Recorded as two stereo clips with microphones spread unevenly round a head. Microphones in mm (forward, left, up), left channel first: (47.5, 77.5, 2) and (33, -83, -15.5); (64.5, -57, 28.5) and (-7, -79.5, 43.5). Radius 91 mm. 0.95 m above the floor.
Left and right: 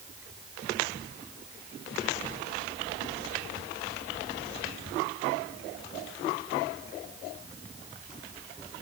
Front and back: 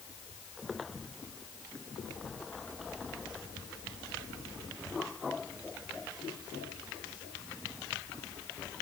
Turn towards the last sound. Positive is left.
No sound to turn to.